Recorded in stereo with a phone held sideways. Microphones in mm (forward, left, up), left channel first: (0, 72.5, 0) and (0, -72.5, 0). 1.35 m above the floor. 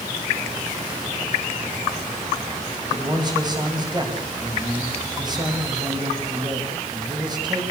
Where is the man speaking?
30° right (ahead or behind), 9.5 m.